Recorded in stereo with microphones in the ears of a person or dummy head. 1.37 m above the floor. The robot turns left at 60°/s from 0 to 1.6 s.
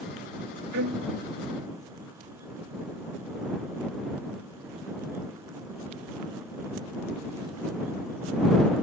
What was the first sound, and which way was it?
A violin, 60° right (ahead or behind).